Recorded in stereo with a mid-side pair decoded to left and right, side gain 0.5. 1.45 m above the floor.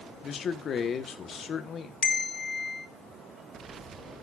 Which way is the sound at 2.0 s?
35° left.